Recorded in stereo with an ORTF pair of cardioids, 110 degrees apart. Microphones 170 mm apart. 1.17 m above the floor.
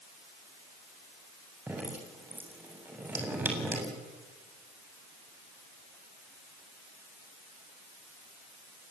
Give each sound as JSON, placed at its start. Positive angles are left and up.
{"t": 1.7, "sound": "dripping", "azimuth_deg": -10, "distance_m": 7.0}